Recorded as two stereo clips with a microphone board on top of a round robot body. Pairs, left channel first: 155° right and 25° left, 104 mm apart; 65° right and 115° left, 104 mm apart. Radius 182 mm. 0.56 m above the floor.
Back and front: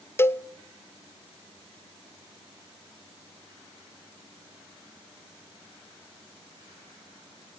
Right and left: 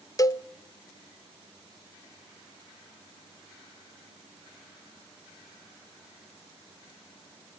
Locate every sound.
0.2 s a cowbell: 100° right, 1.1 m